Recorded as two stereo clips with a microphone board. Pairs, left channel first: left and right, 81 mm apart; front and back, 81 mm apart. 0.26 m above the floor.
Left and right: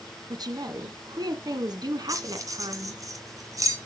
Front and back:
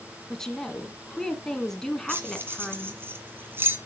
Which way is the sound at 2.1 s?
125° right.